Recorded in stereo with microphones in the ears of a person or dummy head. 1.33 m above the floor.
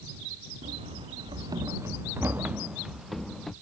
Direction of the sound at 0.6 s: 35° right (ahead or behind).